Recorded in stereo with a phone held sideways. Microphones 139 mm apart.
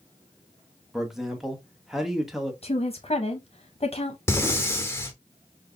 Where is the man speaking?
5° right (ahead or behind), 0.9 m.